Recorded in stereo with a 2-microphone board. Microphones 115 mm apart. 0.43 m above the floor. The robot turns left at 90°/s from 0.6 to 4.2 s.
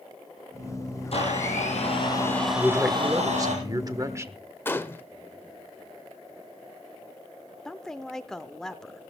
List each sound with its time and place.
1.1 s a blender: 125° left, 4.5 m; by 3.5 s 95° right, 4.5 m
2.5 s a man speaking: 15° left, 1.1 m; by 4.4 s 135° right, 1.1 m
4.7 s a gunshot: 20° left (ahead or behind), 0.8 m
7.7 s a woman speaking: 5° left (ahead or behind), 0.8 m